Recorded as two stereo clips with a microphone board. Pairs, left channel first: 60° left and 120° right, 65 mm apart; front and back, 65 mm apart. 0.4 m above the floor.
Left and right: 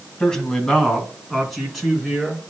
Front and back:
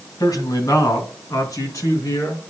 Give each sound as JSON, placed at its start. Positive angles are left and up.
{"t": 0.2, "sound": "a man speaking", "azimuth_deg": -15, "distance_m": 2.0}